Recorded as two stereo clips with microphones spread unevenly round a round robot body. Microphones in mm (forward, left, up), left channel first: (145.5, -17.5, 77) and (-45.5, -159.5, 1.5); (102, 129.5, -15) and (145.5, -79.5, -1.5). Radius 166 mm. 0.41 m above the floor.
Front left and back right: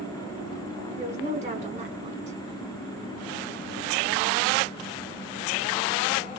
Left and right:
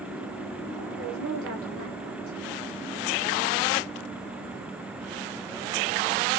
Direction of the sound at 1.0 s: 100° right.